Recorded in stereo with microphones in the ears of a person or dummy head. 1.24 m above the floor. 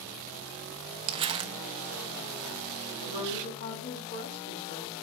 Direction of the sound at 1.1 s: 30° right (ahead or behind).